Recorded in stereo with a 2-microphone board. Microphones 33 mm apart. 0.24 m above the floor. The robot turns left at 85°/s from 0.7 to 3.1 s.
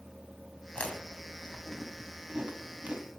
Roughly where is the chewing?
Left.